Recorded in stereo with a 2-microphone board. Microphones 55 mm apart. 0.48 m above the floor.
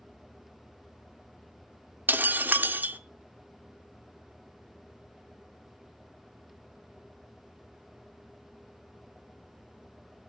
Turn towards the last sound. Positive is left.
turn(degrees=-35)  # may be behind; listen again after turning